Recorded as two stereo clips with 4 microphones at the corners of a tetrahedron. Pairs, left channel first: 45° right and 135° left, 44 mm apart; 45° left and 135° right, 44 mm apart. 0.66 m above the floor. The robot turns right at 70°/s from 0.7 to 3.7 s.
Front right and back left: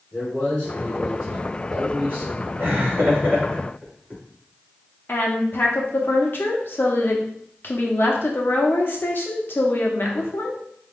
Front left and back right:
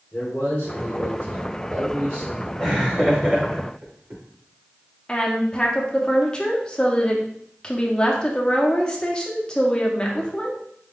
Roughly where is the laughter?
Behind left.